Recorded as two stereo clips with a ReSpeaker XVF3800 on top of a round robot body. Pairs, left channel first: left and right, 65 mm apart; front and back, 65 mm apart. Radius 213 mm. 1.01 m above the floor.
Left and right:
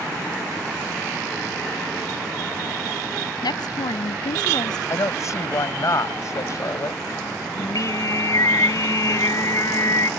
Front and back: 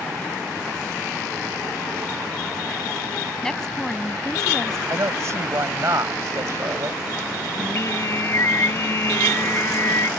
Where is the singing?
50° left.